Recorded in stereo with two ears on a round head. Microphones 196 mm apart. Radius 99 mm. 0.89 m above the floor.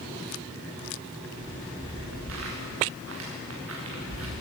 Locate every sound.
1.4 s footsteps: 65° right (ahead or behind), 8.5 m